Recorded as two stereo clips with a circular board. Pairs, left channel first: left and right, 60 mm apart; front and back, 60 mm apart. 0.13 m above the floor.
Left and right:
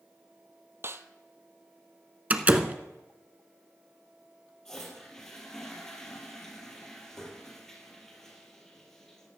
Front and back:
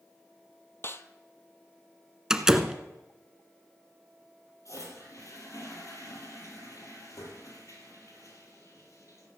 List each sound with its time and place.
0.8 s a snare drum: 45° right, 0.7 m
2.3 s a door slam: 115° right, 1.0 m
4.7 s a toilet flushing: 10° left, 3.5 m